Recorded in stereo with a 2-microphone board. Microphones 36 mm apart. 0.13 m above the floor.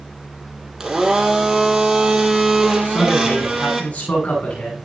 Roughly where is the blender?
Centre.